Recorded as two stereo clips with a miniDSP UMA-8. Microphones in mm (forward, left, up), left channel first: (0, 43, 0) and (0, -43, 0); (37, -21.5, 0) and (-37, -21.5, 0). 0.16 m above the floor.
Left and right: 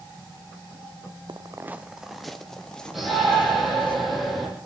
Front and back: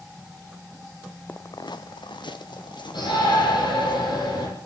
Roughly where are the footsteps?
Ahead right.